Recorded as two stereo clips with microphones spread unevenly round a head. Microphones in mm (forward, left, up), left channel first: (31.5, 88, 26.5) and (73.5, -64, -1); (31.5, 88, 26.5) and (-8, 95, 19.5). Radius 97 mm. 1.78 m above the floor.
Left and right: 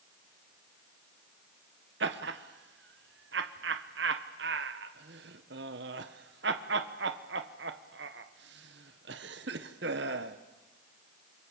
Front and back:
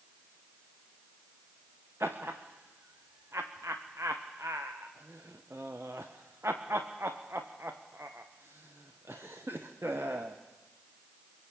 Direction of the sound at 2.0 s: 115° right.